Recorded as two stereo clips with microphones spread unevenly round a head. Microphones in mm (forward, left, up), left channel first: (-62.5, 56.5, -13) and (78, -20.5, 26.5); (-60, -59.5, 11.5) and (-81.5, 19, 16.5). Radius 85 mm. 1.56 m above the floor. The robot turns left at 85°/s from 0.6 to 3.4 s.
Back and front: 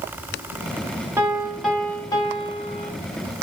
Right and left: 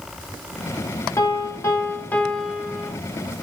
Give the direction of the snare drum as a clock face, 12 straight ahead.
No snare drum in this recording.